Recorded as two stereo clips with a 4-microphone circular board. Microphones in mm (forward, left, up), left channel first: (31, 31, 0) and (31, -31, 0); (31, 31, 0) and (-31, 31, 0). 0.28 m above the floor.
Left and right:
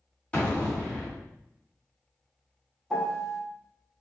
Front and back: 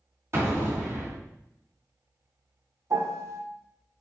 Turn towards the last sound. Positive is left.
turn(degrees=170)